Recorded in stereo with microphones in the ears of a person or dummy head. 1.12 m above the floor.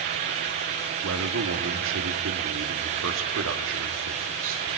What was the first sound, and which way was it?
A man speaking, 80° right.